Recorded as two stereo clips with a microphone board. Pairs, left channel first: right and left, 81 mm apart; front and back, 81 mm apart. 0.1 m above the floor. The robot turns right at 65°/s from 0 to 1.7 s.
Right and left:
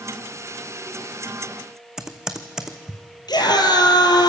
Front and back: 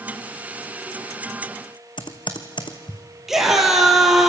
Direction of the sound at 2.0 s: 10° left.